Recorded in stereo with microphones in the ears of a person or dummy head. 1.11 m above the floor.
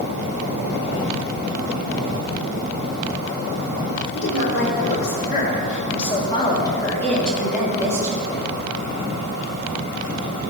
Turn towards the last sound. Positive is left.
turn(degrees=-20)  # may be behind; listen again after turning